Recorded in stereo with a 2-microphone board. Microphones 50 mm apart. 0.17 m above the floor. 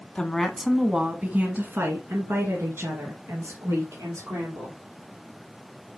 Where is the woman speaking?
15° left (ahead or behind), 1.2 m; by 4.8 s 75° right (ahead or behind), 3.5 m.